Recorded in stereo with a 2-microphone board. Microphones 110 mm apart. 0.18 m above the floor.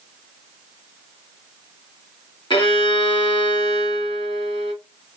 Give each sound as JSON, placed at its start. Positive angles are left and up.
{"t": 2.5, "sound": "a violin", "side_deg": 50, "distance_m": 1.3}